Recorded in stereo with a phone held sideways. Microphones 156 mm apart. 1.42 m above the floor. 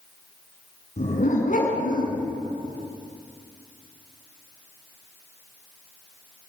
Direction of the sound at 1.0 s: 55° left (ahead or behind).